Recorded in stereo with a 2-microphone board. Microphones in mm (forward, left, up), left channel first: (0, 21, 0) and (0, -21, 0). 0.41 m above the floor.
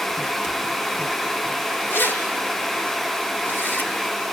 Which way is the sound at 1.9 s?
55° left (ahead or behind).